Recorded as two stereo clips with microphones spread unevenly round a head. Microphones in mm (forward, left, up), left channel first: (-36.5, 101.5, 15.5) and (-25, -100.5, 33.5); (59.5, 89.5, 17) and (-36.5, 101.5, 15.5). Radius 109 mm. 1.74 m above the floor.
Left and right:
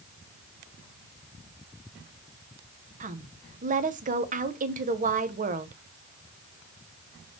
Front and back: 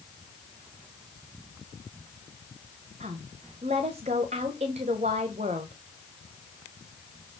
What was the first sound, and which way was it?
A woman speaking, 135° right.